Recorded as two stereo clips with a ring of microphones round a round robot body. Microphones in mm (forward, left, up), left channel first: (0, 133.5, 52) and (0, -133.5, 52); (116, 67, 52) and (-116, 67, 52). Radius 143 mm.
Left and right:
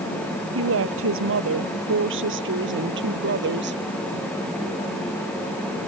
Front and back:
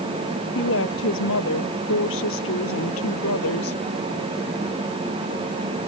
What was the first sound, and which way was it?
A woman speaking, 50° right.